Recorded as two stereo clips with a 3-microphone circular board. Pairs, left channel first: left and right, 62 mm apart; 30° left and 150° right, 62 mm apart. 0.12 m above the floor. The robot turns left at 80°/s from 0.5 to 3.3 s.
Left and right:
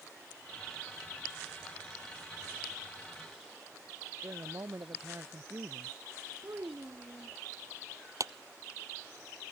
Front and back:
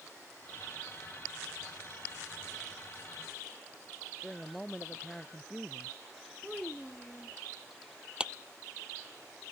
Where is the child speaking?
50° right.